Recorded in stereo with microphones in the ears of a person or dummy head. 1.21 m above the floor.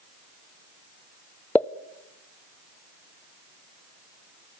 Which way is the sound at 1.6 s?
10° left (ahead or behind).